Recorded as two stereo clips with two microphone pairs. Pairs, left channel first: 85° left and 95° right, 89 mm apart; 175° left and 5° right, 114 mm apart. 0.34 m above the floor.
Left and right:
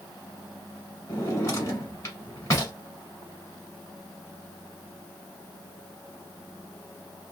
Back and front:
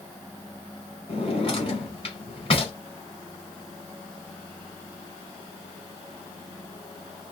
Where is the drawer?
140° left, 1.1 m.